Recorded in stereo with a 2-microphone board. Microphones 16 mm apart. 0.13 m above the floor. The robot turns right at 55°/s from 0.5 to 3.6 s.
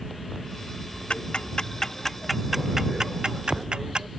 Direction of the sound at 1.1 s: 70° left (ahead or behind).